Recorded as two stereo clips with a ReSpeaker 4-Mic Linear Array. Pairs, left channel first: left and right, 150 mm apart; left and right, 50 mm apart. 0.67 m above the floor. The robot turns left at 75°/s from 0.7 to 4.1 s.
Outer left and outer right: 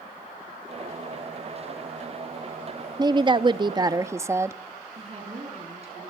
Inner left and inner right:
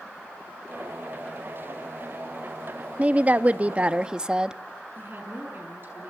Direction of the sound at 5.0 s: 45° right (ahead or behind).